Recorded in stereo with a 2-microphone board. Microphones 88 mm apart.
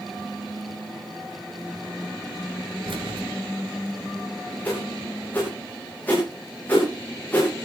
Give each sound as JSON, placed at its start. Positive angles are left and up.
{"t": 2.9, "sound": "keys jangling", "side_deg": -70, "distance_m": 3.0}
{"t": 4.7, "sound": "a whoosh", "side_deg": 20, "distance_m": 8.5}